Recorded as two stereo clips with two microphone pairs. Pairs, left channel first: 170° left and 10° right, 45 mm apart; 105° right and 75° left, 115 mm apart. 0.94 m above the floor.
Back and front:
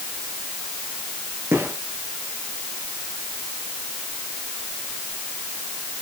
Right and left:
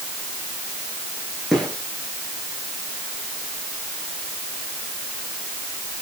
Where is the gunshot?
10° right, 9 m.